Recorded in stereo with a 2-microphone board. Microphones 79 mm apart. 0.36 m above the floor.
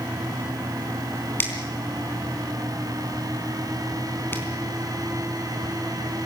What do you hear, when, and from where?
1.4 s a finger snap: 25° left (ahead or behind), 3.5 m